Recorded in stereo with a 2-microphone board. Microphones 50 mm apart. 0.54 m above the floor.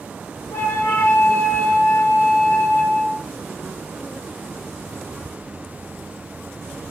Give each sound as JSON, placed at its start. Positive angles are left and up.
{"t": 0.5, "sound": "a flute", "side_deg": 70, "distance_m": 1.5}